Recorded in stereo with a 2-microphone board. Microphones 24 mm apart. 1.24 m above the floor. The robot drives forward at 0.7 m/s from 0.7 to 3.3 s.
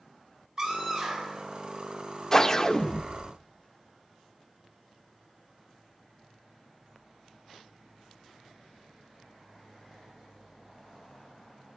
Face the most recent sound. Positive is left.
turn(degrees=20)  # may be behind; listen again after turning